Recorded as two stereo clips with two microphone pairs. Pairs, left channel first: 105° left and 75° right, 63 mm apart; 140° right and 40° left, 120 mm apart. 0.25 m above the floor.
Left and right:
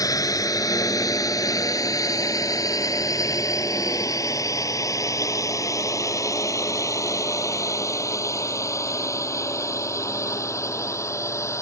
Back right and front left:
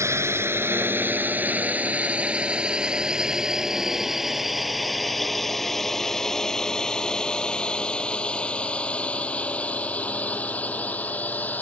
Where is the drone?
105° left; by 11.6 s 145° left.